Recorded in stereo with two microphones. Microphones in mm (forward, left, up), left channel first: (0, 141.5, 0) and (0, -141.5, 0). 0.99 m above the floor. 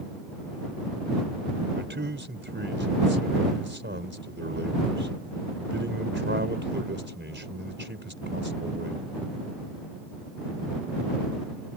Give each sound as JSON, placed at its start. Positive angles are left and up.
{"t": 1.8, "sound": "a man speaking", "side_deg": -40}